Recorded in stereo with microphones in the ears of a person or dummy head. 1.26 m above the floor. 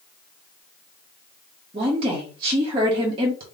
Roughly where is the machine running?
No machine running in this recording.